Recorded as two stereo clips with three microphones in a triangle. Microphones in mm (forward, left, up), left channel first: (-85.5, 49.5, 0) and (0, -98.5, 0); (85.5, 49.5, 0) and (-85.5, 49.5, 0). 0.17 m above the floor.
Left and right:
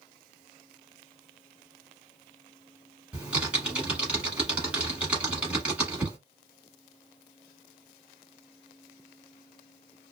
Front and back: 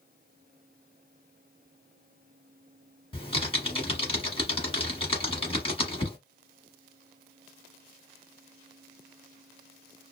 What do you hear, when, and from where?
3.1 s typing on a keyboard: 20° left, 1.1 m